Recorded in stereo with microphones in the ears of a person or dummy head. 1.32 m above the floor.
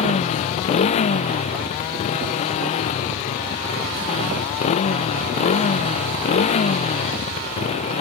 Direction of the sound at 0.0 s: 40° left (ahead or behind).